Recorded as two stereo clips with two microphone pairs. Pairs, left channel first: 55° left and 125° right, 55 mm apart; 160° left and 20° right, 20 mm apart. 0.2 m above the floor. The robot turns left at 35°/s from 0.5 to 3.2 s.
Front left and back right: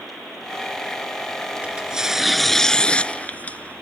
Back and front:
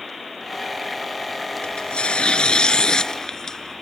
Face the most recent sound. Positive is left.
turn(degrees=110)